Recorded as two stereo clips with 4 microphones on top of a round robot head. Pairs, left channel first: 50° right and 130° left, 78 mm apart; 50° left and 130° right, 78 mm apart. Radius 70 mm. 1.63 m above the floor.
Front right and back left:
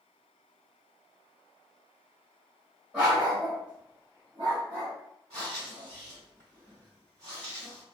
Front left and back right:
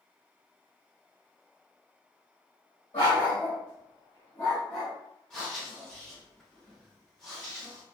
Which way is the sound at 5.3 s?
135° left.